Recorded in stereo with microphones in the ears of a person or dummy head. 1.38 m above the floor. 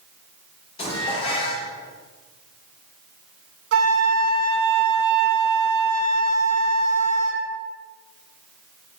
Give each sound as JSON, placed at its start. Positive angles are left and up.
{"t": 0.8, "sound": "dishes clattering", "side_deg": 30, "distance_m": 3.0}
{"t": 3.7, "sound": "a flute", "side_deg": -70, "distance_m": 1.5}